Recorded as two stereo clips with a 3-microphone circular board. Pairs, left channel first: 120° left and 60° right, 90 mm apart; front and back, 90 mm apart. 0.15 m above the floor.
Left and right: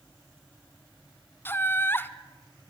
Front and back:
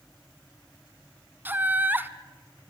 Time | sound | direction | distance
1.4 | laughter | 145° left | 1.1 m